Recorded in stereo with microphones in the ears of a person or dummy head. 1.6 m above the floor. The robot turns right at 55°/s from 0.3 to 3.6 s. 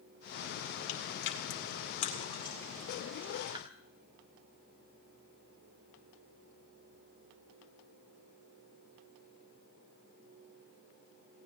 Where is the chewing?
55° left (ahead or behind), 2.5 m; by 3.6 s 30° right (ahead or behind), 2.5 m.